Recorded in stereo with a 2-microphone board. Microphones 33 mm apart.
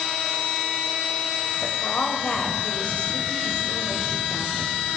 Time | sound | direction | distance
1.6 | a woman speaking | 45° left (ahead or behind) | 3 m